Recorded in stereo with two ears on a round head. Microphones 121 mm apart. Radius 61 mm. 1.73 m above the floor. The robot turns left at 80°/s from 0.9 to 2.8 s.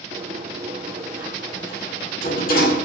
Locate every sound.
0.1 s a sliding door: 45° right (ahead or behind), 7.5 m; by 2.9 s 70° left (ahead or behind), 7.5 m